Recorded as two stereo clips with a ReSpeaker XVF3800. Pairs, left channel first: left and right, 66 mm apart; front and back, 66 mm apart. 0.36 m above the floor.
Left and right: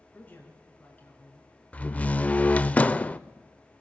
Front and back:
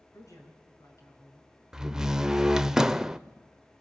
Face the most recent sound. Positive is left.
turn(degrees=110)